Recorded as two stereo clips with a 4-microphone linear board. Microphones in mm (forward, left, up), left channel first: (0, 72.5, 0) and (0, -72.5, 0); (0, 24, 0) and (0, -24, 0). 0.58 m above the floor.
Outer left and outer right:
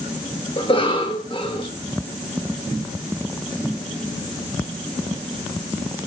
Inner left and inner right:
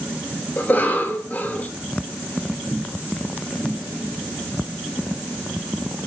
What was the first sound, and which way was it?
A cough, 40° left (ahead or behind).